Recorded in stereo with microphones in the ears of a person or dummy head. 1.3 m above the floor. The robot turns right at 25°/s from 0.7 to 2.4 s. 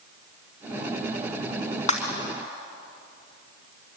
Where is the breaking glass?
45° left (ahead or behind), 4.5 m; by 2.1 s 40° left (ahead or behind), 4.5 m.